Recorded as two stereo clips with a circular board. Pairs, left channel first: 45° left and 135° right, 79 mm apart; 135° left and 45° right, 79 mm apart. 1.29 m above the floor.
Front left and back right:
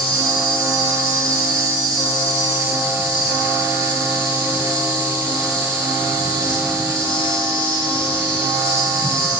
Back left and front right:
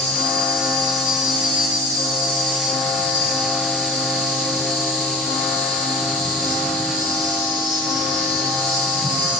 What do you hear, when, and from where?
0.0 s an insect: 35° right, 3.5 m